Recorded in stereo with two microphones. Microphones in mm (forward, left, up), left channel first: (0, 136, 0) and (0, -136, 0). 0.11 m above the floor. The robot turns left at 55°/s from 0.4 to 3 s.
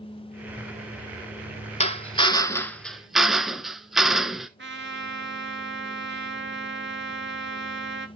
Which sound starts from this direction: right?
A trumpet, at 4.6 s.